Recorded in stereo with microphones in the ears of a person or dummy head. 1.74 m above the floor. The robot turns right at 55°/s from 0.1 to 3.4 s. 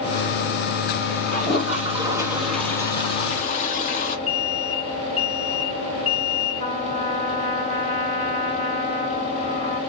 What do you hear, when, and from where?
1.3 s a toilet flushing: 60° right, 1.5 m; by 4.2 s 55° left, 1.5 m
4.3 s an alarm: 30° left (ahead or behind), 3.5 m
6.6 s a trumpet: 30° left (ahead or behind), 2.5 m